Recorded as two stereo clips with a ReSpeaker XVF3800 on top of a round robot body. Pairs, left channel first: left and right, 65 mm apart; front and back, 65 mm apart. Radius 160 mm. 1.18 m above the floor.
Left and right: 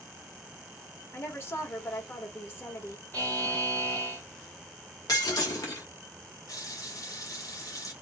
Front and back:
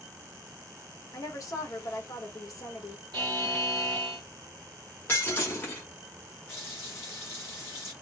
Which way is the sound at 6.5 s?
60° left.